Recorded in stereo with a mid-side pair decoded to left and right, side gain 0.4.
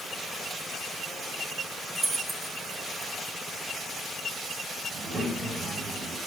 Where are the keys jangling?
25° right, 5.5 m.